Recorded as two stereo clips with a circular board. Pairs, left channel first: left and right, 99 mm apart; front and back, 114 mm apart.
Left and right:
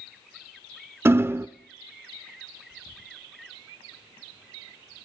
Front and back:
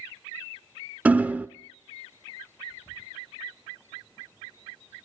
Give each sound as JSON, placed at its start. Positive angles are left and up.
{"t": 1.1, "sound": "hammering", "azimuth_deg": -120, "distance_m": 0.5}